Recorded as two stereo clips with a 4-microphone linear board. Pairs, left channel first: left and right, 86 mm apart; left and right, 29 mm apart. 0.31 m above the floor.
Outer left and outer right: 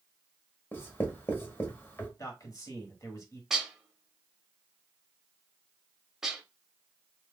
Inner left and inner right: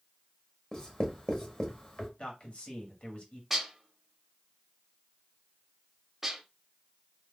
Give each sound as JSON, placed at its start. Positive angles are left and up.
{"t": 0.7, "sound": "writing", "side_deg": 25, "distance_m": 0.9}
{"t": 2.2, "sound": "a man speaking", "side_deg": 40, "distance_m": 1.3}
{"t": 3.5, "sound": "dishes clattering", "side_deg": -5, "distance_m": 0.7}